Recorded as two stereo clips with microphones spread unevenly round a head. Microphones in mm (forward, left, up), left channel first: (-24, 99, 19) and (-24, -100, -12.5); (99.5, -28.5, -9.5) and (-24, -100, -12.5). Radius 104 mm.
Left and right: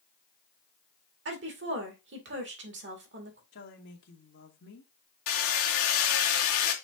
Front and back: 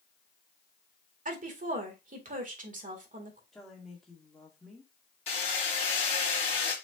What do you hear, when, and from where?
1.2 s a woman speaking: 120° right, 2 m
3.5 s a woman speaking: 120° left, 2 m
5.3 s hammering: 90° left, 1.9 m